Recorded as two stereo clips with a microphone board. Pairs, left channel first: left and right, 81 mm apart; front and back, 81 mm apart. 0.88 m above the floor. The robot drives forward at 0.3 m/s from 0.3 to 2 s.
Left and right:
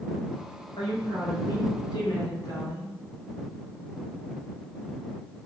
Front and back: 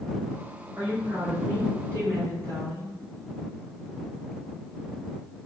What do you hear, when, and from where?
0.8 s a woman speaking: 120° left, 1.5 m; by 2.9 s 130° left, 1.7 m